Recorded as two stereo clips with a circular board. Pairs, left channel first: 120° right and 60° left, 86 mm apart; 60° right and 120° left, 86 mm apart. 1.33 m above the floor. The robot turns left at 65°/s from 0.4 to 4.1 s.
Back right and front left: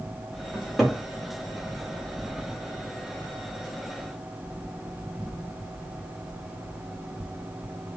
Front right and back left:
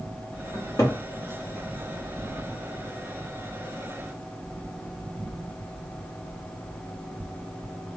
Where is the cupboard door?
10° right, 0.9 m; by 1.0 s 40° right, 0.9 m.